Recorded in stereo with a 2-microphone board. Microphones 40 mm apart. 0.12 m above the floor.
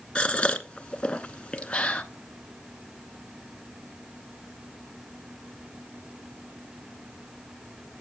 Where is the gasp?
25° left (ahead or behind), 0.7 m.